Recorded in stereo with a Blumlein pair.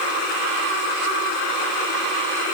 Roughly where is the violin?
No violin in this recording.